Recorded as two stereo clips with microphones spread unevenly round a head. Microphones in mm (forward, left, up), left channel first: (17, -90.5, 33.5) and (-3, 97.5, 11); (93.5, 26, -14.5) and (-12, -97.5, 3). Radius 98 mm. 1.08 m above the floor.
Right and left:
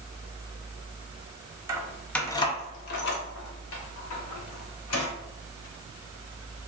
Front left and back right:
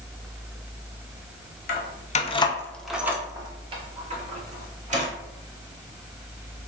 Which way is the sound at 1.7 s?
20° left.